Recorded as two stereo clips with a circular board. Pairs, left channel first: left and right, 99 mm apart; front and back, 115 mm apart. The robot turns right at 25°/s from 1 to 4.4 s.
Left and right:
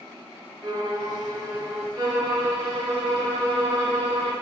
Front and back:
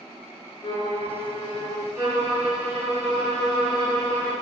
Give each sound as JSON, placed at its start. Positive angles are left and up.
{"t": 0.6, "sound": "a violin", "azimuth_deg": -45, "distance_m": 0.8}
{"t": 1.9, "sound": "a violin", "azimuth_deg": -125, "distance_m": 2.0}